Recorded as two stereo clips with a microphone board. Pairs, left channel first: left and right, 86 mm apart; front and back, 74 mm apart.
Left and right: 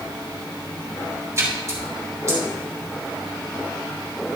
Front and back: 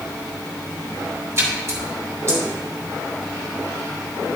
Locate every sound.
1.4 s a splash: 140° right, 2.5 m